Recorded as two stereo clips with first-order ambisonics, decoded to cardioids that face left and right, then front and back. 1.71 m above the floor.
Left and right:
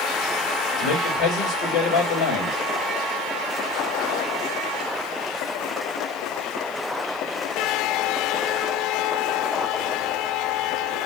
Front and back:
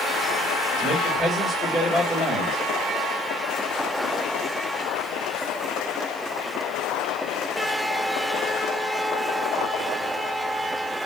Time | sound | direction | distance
0.8 | a man speaking | 90° left | 2.5 m